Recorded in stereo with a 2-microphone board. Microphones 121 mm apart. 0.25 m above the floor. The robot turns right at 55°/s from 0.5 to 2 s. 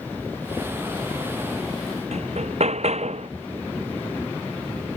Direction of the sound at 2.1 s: 65° right (ahead or behind).